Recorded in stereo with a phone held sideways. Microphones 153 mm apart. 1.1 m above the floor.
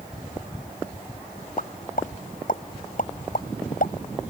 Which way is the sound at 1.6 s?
65° left (ahead or behind).